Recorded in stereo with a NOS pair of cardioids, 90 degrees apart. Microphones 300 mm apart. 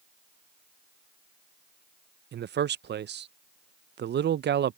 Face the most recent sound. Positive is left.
turn(degrees=-40)